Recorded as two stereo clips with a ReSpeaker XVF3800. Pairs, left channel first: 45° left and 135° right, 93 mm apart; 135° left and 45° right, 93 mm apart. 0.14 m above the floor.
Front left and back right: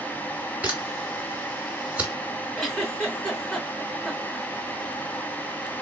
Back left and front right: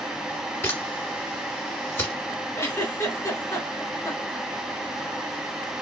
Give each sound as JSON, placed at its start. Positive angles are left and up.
{"t": 0.6, "sound": "a camera shutter", "azimuth_deg": 170, "distance_m": 1.8}
{"t": 2.6, "sound": "a giggle", "azimuth_deg": 130, "distance_m": 1.8}